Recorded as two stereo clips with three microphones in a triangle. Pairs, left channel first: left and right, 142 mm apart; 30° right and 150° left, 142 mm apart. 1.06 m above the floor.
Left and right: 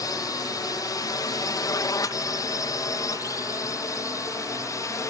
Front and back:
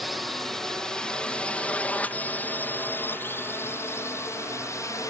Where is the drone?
60° left; by 5.1 s 30° left.